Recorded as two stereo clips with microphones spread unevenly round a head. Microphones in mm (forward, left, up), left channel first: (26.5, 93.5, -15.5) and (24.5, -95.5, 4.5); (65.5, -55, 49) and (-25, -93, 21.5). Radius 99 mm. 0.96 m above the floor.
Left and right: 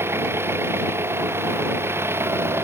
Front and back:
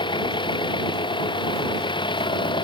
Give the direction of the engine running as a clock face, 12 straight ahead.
12 o'clock.